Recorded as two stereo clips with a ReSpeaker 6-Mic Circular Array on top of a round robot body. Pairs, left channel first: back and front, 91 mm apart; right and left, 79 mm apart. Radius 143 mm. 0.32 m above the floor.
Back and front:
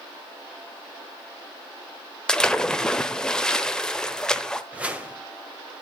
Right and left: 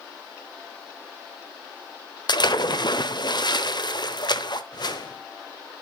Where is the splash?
100° right, 1.0 m.